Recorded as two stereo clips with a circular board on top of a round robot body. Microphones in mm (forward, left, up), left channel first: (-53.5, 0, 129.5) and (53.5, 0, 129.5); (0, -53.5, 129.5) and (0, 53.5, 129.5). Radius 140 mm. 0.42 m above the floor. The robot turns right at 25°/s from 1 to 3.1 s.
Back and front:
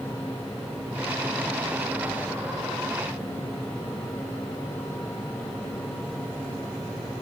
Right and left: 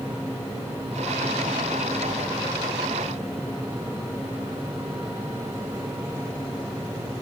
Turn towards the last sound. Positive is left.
No sound to turn to.